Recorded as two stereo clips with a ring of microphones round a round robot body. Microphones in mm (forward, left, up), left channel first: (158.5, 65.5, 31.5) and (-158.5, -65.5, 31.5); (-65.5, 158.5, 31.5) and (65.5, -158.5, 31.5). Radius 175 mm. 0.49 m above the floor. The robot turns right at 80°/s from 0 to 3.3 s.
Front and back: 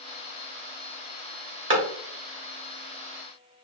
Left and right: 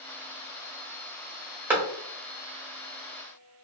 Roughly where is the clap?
Behind right.